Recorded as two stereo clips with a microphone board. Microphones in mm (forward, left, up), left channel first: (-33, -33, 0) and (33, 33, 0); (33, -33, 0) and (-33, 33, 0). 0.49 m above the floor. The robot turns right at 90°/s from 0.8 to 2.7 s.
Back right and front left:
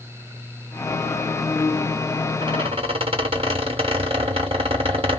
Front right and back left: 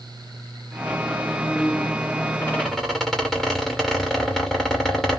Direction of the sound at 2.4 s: 15° left.